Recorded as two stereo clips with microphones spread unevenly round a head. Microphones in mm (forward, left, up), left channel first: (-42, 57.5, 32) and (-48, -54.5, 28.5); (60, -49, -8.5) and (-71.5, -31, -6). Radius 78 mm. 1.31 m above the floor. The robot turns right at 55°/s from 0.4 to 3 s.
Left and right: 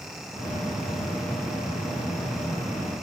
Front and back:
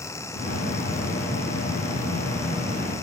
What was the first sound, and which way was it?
Only background noise.